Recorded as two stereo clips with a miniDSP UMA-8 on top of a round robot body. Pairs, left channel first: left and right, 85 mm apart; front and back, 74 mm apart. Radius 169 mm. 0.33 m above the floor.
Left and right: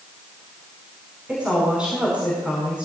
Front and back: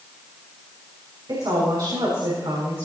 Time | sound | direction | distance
1.3 | a woman speaking | 165° right | 5.5 m